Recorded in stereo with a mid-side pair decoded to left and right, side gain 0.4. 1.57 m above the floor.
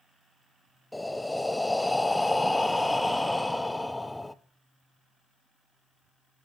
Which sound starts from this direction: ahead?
Breathing, at 0.9 s.